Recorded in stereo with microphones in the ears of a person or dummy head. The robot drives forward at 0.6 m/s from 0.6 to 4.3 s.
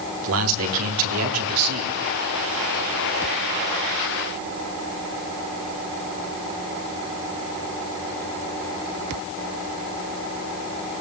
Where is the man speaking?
80° right, 3.5 m; by 1.9 s 90° right, 3.5 m.